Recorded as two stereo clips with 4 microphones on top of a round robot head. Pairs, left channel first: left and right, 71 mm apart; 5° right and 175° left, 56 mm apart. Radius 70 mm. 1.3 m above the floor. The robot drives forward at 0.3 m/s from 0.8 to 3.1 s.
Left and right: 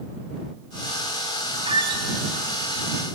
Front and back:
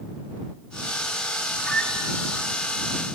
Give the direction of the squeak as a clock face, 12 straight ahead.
3 o'clock.